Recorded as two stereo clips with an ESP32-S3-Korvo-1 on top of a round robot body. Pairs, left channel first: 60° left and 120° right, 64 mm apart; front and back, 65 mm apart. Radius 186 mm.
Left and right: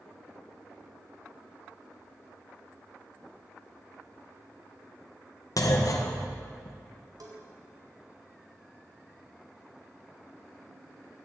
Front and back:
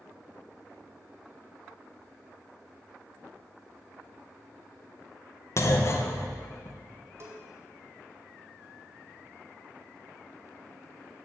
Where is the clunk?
40° left, 1.7 m.